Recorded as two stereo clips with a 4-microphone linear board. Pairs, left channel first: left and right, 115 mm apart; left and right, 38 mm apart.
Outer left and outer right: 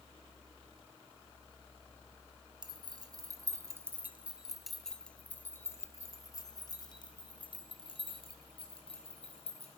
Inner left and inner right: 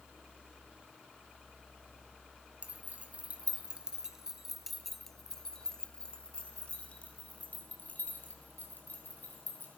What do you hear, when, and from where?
2.6 s keys jangling: 45° right (ahead or behind), 1.7 m; by 9.8 s 60° left (ahead or behind), 3.5 m